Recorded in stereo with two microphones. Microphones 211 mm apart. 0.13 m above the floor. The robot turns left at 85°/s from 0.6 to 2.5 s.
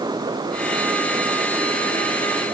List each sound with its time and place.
Only background noise.